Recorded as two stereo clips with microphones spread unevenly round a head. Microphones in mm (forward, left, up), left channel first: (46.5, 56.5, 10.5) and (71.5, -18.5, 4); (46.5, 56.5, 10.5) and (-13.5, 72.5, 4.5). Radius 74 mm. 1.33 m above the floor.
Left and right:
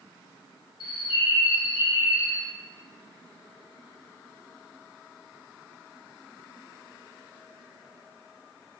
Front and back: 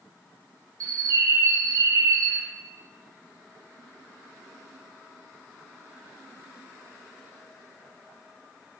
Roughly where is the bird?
Behind left.